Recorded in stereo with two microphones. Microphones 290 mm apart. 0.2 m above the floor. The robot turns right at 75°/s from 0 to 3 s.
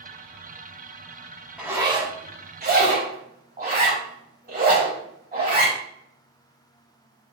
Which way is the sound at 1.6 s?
5° right (ahead or behind).